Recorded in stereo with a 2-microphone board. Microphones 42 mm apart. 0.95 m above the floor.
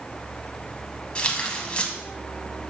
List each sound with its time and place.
1.1 s tearing paper: 25° left (ahead or behind), 1.2 m